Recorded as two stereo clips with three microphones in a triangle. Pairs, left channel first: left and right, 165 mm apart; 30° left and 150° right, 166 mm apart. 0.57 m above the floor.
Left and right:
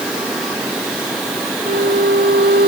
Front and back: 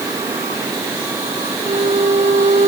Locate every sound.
1.6 s a violin: 100° right